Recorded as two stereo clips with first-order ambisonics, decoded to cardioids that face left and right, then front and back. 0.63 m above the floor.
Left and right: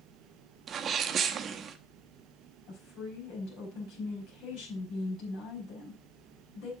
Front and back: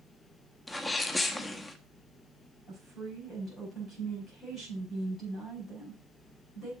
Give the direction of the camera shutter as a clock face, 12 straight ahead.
I don't hear a camera shutter.